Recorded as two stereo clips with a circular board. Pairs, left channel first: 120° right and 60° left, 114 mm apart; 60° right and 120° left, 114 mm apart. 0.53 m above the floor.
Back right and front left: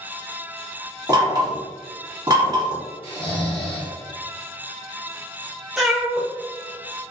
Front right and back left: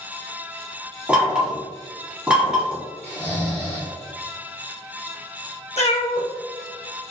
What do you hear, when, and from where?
1.1 s knocking: 50° left, 1.1 m
3.0 s snoring: 125° right, 1.5 m
5.8 s a cat meowing: 30° right, 0.5 m